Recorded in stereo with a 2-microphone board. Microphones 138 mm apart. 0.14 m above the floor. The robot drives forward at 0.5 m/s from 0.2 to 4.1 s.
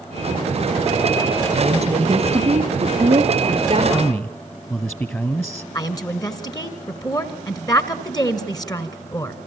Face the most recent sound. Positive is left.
turn(degrees=30)  # may be behind; listen again after turning